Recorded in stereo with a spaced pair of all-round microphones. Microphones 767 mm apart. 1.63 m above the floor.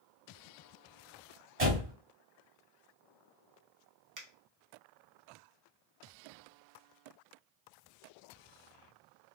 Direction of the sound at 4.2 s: 30° right (ahead or behind).